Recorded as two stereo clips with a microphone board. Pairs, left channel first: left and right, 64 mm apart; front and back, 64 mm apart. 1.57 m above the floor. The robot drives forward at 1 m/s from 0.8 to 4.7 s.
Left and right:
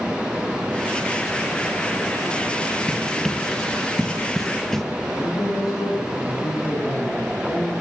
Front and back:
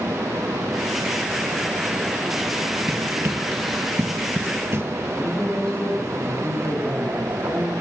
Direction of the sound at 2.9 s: 170° left.